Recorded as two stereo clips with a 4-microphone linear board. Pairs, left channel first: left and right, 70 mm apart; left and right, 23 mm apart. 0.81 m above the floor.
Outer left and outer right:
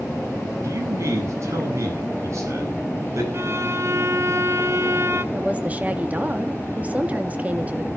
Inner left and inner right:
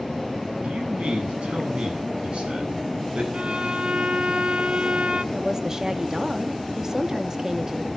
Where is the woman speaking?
20° right (ahead or behind), 1.7 m.